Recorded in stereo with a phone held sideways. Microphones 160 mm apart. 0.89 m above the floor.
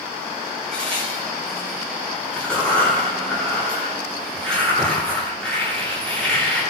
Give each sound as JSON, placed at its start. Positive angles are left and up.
{"t": 0.7, "sound": "a crack", "side_deg": 5, "distance_m": 10.0}